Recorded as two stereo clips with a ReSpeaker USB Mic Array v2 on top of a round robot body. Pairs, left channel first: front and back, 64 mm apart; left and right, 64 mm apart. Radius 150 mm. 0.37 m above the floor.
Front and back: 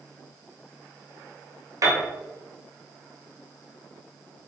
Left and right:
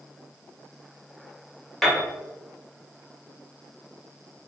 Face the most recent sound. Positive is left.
turn(degrees=175)